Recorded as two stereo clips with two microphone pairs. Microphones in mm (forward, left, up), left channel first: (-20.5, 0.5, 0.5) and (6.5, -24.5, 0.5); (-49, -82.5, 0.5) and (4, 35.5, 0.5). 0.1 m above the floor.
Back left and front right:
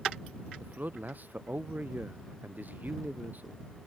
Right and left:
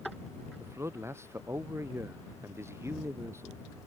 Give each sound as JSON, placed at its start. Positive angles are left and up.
{"t": 0.6, "sound": "a man speaking", "azimuth_deg": -5}